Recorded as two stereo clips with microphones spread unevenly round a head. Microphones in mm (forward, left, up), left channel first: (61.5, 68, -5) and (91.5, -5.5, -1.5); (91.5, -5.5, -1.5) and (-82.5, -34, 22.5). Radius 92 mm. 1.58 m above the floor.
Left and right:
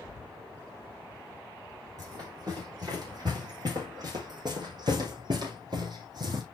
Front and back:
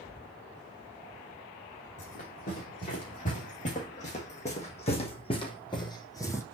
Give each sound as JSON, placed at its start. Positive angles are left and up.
{"t": 2.0, "sound": "running footsteps", "azimuth_deg": -35, "distance_m": 6.0}